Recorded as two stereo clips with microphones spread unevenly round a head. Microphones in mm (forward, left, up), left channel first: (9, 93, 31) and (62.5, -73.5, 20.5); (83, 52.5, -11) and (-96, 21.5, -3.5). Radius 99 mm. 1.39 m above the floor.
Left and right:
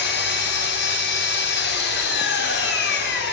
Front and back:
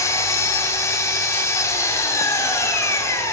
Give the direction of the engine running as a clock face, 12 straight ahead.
9 o'clock.